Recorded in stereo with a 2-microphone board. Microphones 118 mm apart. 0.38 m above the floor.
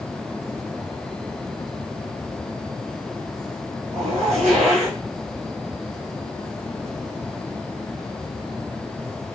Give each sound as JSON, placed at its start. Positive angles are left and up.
{"t": 3.9, "sound": "a zipper", "side_deg": -75, "distance_m": 1.5}